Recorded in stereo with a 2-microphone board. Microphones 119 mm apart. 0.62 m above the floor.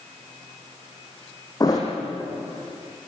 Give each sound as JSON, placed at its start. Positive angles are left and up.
{"t": 1.6, "sound": "a thud", "side_deg": 30, "distance_m": 5.0}